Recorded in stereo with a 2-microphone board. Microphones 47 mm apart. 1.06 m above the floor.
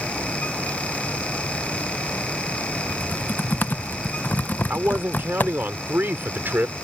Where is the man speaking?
45° right (ahead or behind).